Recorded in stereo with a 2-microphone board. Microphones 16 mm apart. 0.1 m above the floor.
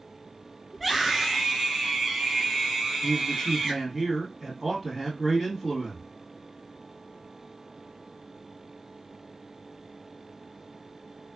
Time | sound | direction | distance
0.7 | a scream | centre (ahead or behind) | 1.2 m
3.0 | a man speaking | 10° right (ahead or behind) | 2.0 m